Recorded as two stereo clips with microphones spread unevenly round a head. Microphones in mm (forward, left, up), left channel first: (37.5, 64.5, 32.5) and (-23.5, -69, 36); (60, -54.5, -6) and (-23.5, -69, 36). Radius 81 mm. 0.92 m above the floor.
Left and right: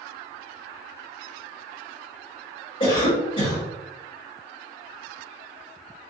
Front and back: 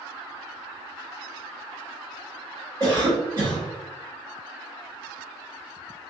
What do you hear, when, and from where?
2.8 s a cough: 110° left, 2.0 m